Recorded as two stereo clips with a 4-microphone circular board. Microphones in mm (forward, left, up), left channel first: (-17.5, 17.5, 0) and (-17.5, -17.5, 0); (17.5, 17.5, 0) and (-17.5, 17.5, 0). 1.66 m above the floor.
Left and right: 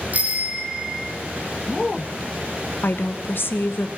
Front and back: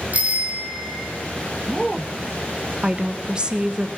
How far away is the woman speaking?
About 1.2 m.